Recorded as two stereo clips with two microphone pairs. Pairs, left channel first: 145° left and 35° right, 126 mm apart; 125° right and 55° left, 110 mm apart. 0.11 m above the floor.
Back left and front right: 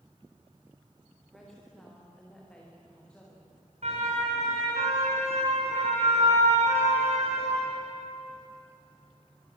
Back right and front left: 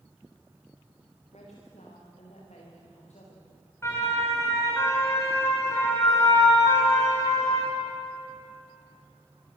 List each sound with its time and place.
1.3 s a woman speaking: 125° right, 9.5 m; by 3.5 s 135° right, 9.5 m
3.8 s a siren: 60° right, 9 m; by 7.7 s 65° right, 6 m